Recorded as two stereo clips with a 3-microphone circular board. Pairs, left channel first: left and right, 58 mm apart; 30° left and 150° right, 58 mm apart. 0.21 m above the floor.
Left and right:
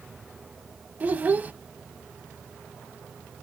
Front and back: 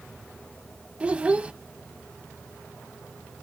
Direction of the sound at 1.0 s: 105° right.